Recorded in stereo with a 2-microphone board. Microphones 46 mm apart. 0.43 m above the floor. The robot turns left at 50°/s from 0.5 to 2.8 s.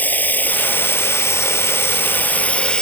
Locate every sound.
0.0 s running water: 135° left; by 2.8 s 20° left